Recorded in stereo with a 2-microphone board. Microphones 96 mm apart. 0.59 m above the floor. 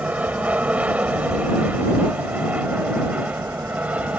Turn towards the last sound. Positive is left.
turn(degrees=-15)  # may be behind; listen again after turning